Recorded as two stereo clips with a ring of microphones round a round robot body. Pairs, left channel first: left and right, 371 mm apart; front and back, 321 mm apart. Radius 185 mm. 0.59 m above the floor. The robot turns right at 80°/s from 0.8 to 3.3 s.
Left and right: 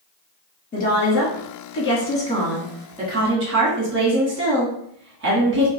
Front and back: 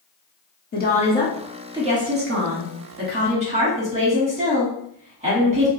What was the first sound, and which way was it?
A woman speaking, 35° left.